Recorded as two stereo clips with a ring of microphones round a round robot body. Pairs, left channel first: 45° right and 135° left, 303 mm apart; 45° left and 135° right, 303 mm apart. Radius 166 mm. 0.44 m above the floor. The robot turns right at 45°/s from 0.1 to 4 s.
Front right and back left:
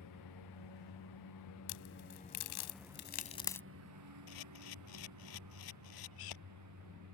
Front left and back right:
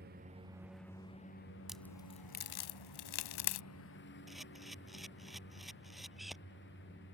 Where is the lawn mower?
75° right; by 7.1 s 100° left.